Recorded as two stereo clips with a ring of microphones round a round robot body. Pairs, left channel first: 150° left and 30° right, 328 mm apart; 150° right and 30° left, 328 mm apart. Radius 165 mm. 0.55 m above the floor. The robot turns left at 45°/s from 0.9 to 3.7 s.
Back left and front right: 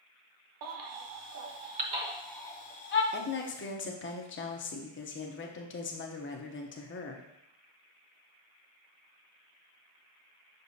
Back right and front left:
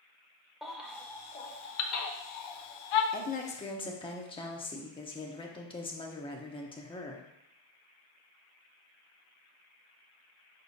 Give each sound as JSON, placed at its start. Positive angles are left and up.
{"t": 0.6, "sound": "a baby crying", "azimuth_deg": -60, "distance_m": 0.8}
{"t": 3.1, "sound": "a woman speaking", "azimuth_deg": 175, "distance_m": 0.8}